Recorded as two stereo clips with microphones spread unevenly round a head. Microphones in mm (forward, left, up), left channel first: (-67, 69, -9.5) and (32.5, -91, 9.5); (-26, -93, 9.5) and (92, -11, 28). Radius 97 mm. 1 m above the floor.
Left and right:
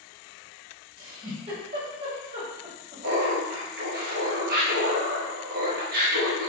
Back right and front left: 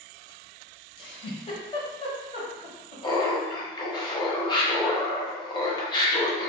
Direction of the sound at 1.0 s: 100° right.